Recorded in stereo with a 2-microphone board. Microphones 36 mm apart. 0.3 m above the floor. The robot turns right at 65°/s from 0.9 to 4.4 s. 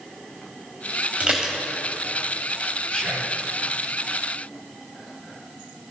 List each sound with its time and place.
1.2 s dishes clattering: 35° right (ahead or behind), 1.1 m; by 1.6 s 20° right (ahead or behind), 1.1 m
2.9 s whispering: 125° left, 1.0 m; by 3.4 s 160° left, 1.0 m